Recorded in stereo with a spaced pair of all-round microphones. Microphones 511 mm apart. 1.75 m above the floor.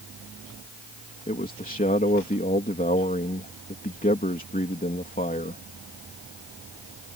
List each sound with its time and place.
1.3 s a man speaking: 15° left (ahead or behind)